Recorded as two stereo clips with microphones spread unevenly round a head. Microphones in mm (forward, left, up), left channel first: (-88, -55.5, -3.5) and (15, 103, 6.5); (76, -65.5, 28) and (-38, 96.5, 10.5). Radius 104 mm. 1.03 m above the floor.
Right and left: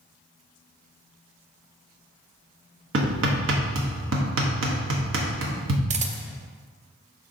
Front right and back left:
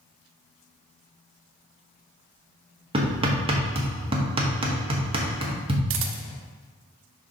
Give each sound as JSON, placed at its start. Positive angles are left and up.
{"t": 2.9, "sound": "hammering", "azimuth_deg": 65, "distance_m": 1.2}
{"t": 5.9, "sound": "a camera shutter", "azimuth_deg": 105, "distance_m": 0.6}